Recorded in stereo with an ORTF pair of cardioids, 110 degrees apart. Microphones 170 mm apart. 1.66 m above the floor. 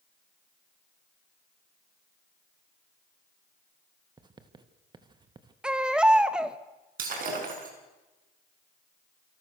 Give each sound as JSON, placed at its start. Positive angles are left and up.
{"t": 4.2, "sound": "writing", "azimuth_deg": -25, "distance_m": 2.0}
{"t": 5.6, "sound": "a baby crying", "azimuth_deg": -5, "distance_m": 1.6}
{"t": 7.0, "sound": "breaking glass", "azimuth_deg": -55, "distance_m": 6.5}